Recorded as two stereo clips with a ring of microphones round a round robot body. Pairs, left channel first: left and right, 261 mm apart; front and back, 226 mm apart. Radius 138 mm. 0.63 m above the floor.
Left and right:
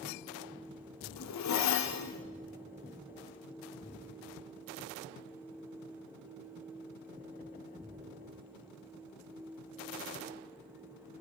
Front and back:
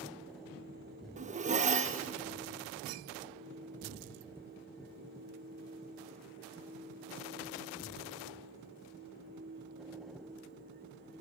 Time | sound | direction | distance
1.2 | a zipper | 120° left | 0.7 m